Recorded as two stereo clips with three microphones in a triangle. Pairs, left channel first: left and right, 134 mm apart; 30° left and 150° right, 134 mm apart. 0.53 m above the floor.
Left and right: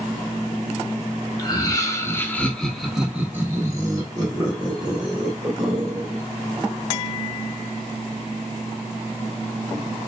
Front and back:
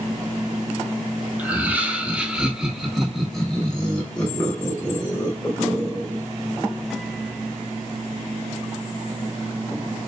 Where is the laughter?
135° left, 1.1 m; by 6.2 s 45° right, 1.9 m.